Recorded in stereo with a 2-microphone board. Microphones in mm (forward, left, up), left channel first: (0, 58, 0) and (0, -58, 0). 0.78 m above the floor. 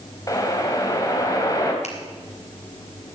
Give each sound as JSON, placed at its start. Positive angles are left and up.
{"t": 0.3, "sound": "a whoosh", "side_deg": 30, "distance_m": 2.5}
{"t": 1.8, "sound": "a finger snap", "side_deg": 70, "distance_m": 3.0}